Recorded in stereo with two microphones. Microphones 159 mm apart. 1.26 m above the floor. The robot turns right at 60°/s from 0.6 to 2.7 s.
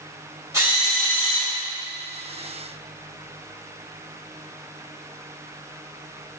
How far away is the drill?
About 2.5 m.